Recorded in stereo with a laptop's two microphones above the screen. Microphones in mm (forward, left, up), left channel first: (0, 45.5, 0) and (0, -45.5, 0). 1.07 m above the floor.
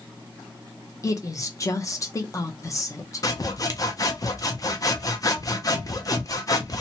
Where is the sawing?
40° left (ahead or behind), 0.6 m.